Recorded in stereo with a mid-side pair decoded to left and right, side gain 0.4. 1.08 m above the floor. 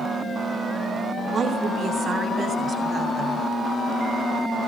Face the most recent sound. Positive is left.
turn(degrees=-55)